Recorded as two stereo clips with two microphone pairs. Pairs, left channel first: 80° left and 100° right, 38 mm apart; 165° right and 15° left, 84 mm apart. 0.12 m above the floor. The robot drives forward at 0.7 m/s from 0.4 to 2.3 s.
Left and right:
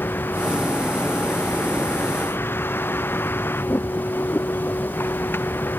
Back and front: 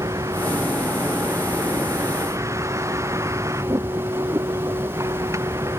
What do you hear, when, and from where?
0.0 s a vehicle: 65° left; by 5.8 s 70° left